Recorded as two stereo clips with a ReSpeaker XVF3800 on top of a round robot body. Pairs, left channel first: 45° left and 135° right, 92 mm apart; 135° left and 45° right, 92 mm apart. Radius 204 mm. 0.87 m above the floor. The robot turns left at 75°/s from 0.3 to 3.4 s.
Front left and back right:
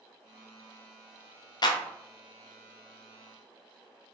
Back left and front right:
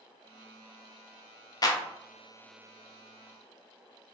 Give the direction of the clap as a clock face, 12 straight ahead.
9 o'clock.